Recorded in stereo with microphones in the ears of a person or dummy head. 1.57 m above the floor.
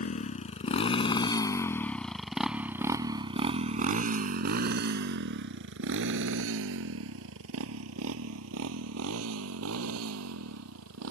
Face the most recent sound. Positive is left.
turn(degrees=-85)